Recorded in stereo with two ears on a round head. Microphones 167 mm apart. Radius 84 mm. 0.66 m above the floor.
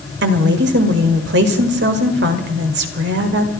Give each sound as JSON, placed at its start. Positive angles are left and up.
{"t": 0.2, "sound": "a woman speaking", "side_deg": -65, "distance_m": 2.0}